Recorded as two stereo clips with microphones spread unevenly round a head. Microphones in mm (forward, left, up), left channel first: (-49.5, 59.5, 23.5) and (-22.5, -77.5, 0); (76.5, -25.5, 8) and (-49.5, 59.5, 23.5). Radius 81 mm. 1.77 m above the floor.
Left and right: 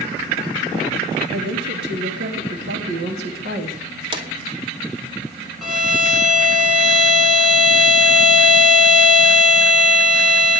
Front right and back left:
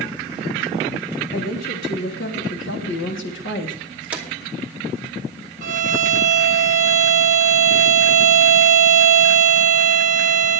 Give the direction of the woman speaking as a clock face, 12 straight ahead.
2 o'clock.